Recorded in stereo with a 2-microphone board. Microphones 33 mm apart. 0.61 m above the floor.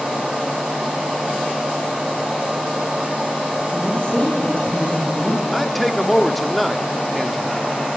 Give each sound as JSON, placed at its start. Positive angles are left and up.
{"t": 3.7, "sound": "a woman speaking", "side_deg": 35, "distance_m": 3.0}
{"t": 5.5, "sound": "a man speaking", "side_deg": 5, "distance_m": 1.3}